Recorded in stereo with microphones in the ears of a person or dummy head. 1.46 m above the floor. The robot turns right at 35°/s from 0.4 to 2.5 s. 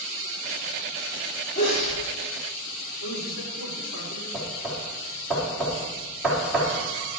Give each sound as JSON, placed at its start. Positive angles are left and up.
{"t": 1.6, "sound": "a sneeze", "side_deg": 40, "distance_m": 4.0}
{"t": 3.0, "sound": "a man speaking", "side_deg": 70, "distance_m": 4.0}
{"t": 4.3, "sound": "knocking", "side_deg": 0, "distance_m": 3.5}